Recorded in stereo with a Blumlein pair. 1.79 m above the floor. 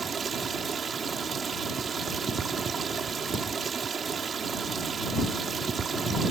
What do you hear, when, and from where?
0.0 s running water: 20° right